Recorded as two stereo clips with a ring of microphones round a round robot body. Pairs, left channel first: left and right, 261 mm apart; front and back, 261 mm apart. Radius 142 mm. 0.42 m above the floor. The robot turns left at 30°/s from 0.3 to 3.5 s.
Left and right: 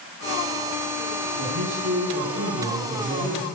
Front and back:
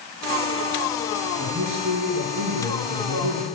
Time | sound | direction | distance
1.4 | a man speaking | 130° right | 6 m